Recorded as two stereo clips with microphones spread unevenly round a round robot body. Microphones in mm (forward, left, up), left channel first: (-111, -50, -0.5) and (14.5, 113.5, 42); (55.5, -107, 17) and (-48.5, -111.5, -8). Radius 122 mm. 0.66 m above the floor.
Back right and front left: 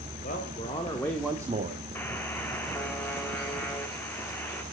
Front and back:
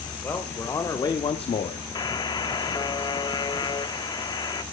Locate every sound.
0.2 s a man speaking: 70° right, 2 m; by 1.8 s straight ahead, 1.0 m
1.9 s a buzzer: 55° right, 1.1 m